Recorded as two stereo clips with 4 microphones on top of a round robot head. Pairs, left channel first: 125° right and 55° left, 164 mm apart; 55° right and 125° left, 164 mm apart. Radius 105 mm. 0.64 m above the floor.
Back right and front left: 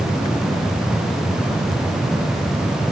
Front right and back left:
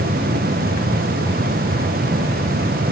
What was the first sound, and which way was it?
Only background noise.